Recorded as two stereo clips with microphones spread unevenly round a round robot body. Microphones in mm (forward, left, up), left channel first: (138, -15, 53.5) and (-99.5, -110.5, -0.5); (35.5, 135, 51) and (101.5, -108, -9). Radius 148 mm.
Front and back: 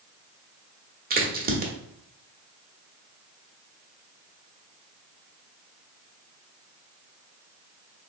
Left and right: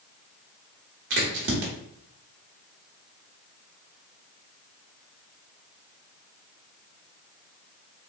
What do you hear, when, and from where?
1.1 s a crack: 110° right, 1.0 m